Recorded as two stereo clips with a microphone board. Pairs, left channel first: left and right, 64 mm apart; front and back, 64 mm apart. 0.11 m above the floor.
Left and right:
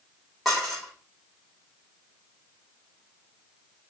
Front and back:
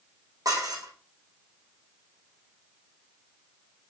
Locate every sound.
0.5 s dishes clattering: straight behind, 5 m